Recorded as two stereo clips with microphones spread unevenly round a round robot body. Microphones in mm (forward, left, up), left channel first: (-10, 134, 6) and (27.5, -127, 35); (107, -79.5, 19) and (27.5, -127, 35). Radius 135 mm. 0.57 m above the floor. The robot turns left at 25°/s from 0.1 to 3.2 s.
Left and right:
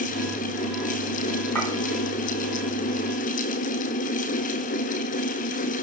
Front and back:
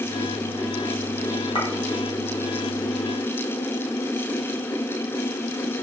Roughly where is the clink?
Ahead.